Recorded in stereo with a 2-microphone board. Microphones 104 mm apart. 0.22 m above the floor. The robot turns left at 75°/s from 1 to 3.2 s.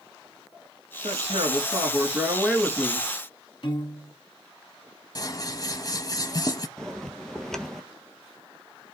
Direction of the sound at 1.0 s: 70° right.